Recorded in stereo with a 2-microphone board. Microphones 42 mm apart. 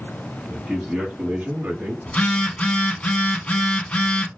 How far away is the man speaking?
About 1.1 m.